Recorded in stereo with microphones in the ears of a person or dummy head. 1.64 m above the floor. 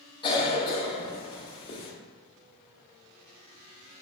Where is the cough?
25° left (ahead or behind), 0.6 m.